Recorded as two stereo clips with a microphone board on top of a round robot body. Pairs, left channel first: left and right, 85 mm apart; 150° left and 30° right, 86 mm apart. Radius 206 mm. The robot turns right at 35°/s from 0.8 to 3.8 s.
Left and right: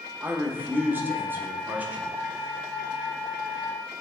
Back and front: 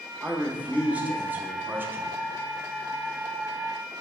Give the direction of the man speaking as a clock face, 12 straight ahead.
3 o'clock.